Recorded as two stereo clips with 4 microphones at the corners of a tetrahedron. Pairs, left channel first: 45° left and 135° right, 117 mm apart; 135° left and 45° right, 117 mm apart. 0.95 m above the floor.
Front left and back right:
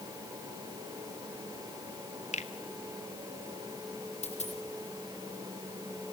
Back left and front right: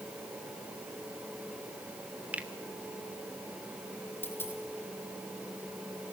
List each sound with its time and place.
2.3 s a finger snap: 35° left, 1.6 m
4.2 s a dropped coin: 65° left, 5 m